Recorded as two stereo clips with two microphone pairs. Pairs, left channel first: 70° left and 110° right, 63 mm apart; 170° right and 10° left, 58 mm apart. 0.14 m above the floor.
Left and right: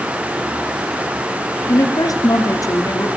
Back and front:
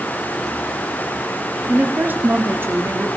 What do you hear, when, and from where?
1.7 s a woman speaking: 75° left, 3.5 m; by 3.1 s 45° left, 4 m